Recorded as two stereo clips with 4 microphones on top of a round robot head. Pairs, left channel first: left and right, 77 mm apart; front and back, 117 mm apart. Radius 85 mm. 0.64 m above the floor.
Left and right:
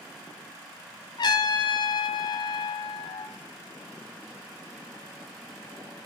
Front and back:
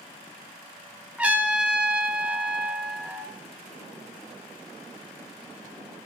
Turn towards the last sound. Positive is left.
turn(degrees=105)